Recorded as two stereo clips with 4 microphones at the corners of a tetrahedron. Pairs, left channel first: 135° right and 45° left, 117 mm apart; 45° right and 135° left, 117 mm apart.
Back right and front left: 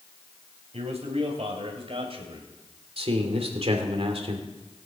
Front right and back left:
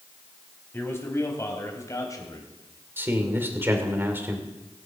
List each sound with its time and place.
0.7 s a man speaking: 20° left, 3.5 m; by 2.5 s 10° left, 3 m
3.0 s a man speaking: 65° left, 2.5 m